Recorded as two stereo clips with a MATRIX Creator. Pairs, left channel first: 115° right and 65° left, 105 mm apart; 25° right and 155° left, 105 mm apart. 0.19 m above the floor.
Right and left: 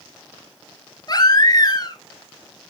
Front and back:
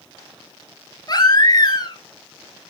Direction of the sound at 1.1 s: 70° right.